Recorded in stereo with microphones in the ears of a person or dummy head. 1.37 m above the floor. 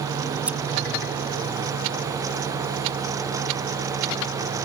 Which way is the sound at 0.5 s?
5° right (ahead or behind).